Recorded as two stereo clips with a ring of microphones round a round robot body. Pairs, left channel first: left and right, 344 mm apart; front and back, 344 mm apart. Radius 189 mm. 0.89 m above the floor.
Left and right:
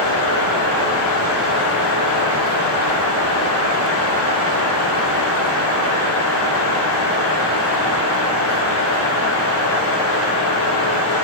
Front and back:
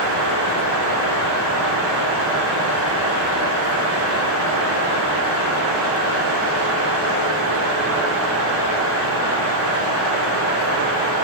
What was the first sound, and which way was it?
Only background noise.